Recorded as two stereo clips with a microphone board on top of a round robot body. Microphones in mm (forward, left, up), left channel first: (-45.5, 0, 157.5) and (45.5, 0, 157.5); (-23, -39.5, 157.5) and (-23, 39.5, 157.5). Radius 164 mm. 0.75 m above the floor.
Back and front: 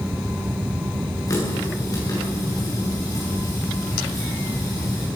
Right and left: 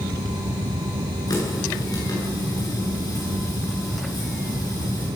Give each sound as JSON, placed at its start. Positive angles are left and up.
{"t": 1.3, "sound": "a running tap", "azimuth_deg": -130, "distance_m": 9.5}